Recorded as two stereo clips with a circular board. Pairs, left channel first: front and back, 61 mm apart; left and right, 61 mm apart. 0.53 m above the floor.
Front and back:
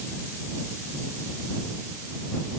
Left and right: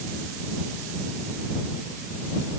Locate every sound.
Only background noise.